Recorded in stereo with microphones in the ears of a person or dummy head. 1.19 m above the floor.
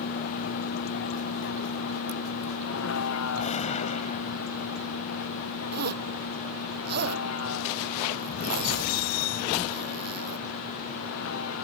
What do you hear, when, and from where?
0.0 s a vehicle: 55° left (ahead or behind); by 11.7 s 80° left
3.4 s a gunshot: 40° left (ahead or behind)
5.7 s a zipper: 60° right (ahead or behind)